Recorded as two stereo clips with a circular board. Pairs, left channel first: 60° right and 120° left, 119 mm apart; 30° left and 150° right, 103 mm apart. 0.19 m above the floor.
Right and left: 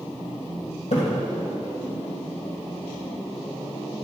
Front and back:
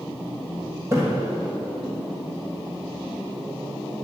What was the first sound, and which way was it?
A splash, 85° right.